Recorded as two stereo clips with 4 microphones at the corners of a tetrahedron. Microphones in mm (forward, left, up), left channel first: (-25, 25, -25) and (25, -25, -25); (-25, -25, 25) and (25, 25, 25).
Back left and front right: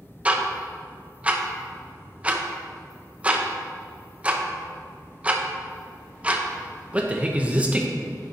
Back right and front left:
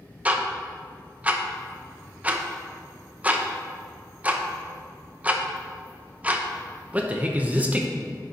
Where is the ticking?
Straight ahead, 0.7 m.